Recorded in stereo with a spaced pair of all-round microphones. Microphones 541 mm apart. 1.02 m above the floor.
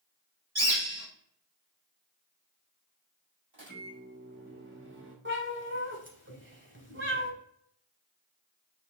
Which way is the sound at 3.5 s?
55° right (ahead or behind).